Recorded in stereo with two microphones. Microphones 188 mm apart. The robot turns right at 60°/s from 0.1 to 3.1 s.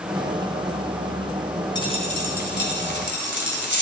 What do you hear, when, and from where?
1.8 s a dropped coin: 20° left, 2.0 m; by 3.8 s 105° left, 2.0 m